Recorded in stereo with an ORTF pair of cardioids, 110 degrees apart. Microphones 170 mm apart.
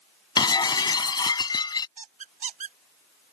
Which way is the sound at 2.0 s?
50° right.